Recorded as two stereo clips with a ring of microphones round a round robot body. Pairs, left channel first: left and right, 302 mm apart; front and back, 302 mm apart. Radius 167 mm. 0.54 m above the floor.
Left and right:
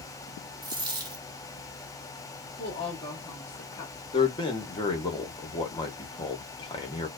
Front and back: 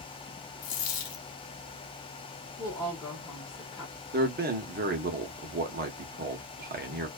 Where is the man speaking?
155° left, 0.7 m.